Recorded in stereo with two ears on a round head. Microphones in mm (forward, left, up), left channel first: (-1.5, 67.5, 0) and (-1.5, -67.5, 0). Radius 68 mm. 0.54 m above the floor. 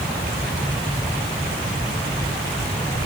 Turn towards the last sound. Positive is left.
No sound to turn to.